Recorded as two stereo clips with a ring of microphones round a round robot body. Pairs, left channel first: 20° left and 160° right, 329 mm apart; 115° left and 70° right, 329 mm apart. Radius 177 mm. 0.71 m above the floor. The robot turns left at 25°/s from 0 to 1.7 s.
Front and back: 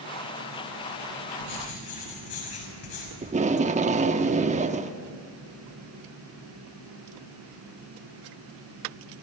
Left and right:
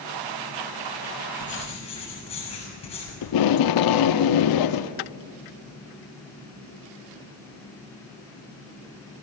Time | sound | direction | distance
1.4 | writing | 45° left | 6.5 m
3.2 | tape being pulled | 135° left | 0.9 m